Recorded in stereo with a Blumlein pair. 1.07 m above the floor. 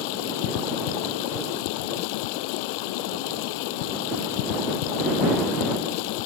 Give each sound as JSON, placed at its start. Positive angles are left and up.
{"t": 0.0, "sound": "running water", "azimuth_deg": 45}